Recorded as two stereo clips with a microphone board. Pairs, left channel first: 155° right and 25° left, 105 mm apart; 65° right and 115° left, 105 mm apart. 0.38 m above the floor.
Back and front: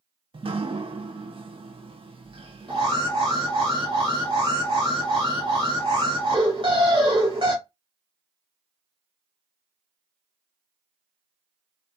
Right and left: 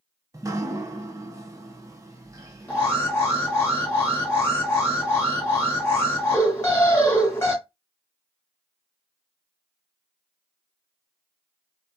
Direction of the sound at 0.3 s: 55° left.